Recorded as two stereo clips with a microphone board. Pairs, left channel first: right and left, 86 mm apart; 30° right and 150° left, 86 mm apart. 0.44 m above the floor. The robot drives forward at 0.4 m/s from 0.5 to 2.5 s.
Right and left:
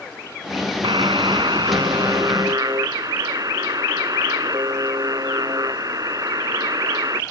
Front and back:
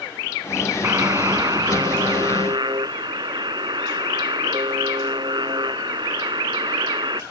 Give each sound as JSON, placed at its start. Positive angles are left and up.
{"t": 0.8, "sound": "a buzzer", "azimuth_deg": 100}